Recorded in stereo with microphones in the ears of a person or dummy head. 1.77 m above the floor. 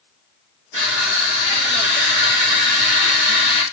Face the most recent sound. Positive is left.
turn(degrees=-45)  # may be behind; listen again after turning